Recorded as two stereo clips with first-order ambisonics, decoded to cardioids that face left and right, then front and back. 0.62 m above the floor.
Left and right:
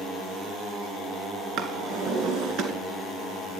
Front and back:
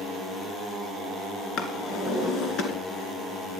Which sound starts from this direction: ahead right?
A drawer, at 1.6 s.